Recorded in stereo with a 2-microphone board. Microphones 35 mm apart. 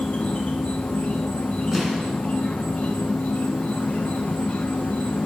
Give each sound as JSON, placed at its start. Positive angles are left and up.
{"t": 0.0, "sound": "an insect", "side_deg": 30, "distance_m": 1.3}
{"t": 1.7, "sound": "an explosion", "side_deg": -10, "distance_m": 1.8}